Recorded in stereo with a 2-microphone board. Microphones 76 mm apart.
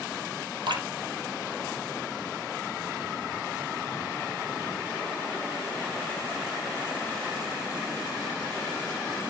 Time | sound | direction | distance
0.7 | dripping | 70° right (ahead or behind) | 3 m